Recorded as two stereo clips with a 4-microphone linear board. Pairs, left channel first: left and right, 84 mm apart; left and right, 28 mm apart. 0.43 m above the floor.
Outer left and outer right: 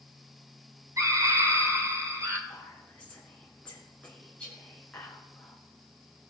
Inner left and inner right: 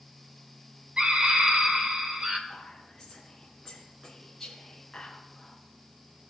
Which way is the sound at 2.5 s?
15° left (ahead or behind).